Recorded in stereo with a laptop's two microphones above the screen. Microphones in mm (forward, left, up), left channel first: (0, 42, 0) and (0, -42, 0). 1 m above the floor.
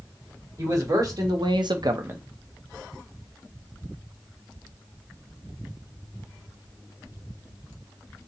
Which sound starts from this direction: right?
A man speaking, at 0.6 s.